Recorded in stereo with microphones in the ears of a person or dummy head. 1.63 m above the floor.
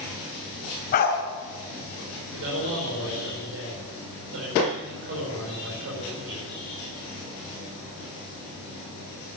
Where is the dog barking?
40° left (ahead or behind), 3 m.